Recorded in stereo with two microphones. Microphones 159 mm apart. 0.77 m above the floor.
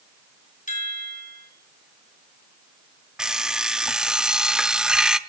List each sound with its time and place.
0.7 s a chime: 55° left (ahead or behind), 2 m
3.2 s an alarm clock: 5° right (ahead or behind), 0.7 m